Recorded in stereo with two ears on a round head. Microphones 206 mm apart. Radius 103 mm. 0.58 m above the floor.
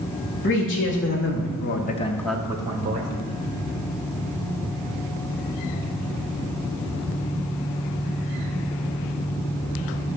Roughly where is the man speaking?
Left.